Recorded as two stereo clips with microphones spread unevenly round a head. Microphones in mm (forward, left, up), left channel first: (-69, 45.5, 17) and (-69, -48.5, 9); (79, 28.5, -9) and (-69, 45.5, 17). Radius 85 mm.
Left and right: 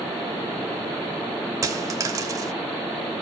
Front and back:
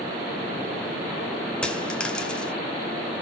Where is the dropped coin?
105° right, 1.1 m.